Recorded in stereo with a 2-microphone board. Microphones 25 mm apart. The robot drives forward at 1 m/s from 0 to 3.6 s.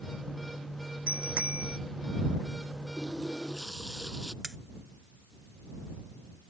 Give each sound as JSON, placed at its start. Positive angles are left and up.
{"t": 1.1, "sound": "a bicycle bell", "side_deg": -80}
{"t": 3.0, "sound": "a running tap", "side_deg": -15}
{"t": 4.4, "sound": "cutlery clinking", "side_deg": -30}